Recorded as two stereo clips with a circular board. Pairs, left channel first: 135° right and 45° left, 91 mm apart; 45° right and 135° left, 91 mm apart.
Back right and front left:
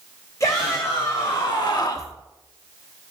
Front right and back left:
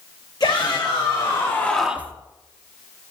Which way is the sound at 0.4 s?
80° right.